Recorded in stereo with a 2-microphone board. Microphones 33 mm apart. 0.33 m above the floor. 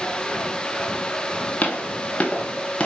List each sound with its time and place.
1.6 s footsteps: 45° left (ahead or behind), 3 m; by 2.9 s 30° left (ahead or behind), 3 m